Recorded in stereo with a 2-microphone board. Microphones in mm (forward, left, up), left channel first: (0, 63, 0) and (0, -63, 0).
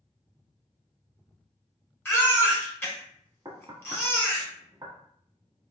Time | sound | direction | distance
2.0 | a baby crying | 20° left (ahead or behind) | 1.2 m
3.5 | knocking | 35° right (ahead or behind) | 1.3 m